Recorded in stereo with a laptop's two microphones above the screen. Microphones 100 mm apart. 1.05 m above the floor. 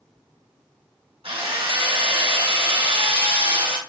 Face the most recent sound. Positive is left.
turn(degrees=-90)